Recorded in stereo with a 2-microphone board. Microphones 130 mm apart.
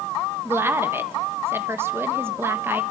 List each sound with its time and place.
0.5 s a woman speaking: 20° right (ahead or behind), 1.3 m